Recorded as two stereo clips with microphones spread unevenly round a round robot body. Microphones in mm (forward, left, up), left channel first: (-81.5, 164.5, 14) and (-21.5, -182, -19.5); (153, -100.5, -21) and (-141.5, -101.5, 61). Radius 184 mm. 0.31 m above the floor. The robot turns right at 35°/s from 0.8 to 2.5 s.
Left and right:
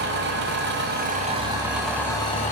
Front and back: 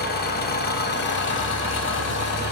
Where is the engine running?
30° right, 1.0 m; by 2.5 s 30° left, 1.0 m.